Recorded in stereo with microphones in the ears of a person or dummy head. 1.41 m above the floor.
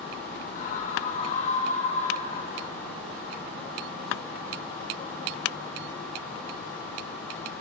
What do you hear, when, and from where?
0.6 s a scream: 45° left (ahead or behind), 5.5 m; by 2.7 s 40° left (ahead or behind), 2.5 m